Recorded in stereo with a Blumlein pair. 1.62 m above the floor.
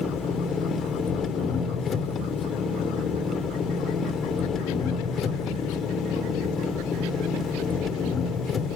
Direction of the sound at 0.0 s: 20° left.